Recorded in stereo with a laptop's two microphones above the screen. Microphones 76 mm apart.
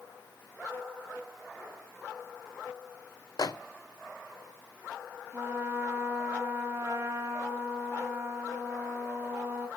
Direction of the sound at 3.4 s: 50° left (ahead or behind).